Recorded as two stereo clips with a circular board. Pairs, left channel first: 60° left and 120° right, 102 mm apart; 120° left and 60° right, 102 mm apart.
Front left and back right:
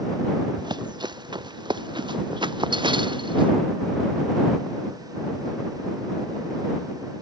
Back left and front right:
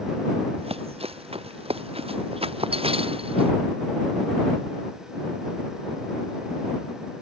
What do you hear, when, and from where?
0.6 s running footsteps: 75° right; by 3.5 s 80° right